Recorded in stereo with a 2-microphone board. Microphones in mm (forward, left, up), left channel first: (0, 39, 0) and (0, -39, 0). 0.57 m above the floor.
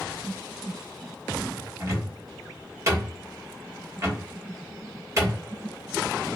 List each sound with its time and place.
1.8 s a cupboard door: 35° right (ahead or behind), 1.0 m